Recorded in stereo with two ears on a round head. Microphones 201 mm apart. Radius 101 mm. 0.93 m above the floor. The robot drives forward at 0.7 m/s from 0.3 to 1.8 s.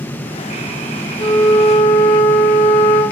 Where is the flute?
30° left (ahead or behind), 2 m; by 3.0 s 35° left (ahead or behind), 1.7 m.